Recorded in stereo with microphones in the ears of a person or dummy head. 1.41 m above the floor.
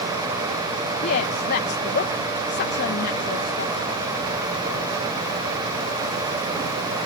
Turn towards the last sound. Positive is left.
turn(degrees=55)  # may be behind; listen again after turning